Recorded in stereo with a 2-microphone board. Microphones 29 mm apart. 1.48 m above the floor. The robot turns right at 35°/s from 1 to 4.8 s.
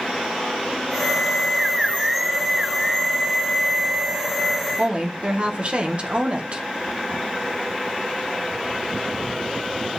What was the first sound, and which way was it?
A woman speaking, 40° right (ahead or behind).